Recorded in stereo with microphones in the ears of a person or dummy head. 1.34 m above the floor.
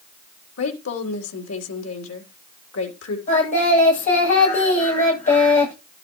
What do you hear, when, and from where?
0.6 s a woman speaking: 85° left, 3.5 m
3.3 s singing: 40° left (ahead or behind), 8.5 m